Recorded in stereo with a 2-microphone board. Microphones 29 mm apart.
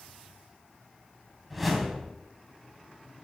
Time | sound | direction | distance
1.5 | a whoosh | 5° right (ahead or behind) | 2.5 m